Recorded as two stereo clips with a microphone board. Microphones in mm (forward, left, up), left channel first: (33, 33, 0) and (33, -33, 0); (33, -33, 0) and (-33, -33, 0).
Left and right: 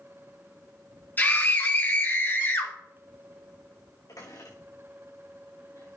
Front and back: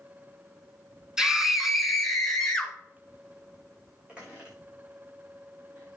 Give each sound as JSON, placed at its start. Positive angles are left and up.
{"t": 1.2, "sound": "a scream", "azimuth_deg": 110, "distance_m": 1.9}
{"t": 4.1, "sound": "a squeak", "azimuth_deg": 105, "distance_m": 5.0}